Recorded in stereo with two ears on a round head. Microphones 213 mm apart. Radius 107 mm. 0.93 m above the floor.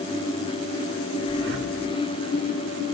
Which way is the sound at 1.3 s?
50° right (ahead or behind).